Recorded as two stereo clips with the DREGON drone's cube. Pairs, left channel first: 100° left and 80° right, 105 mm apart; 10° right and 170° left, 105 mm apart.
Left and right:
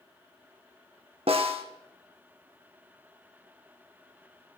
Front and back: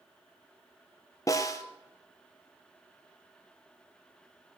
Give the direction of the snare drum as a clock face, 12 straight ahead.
2 o'clock.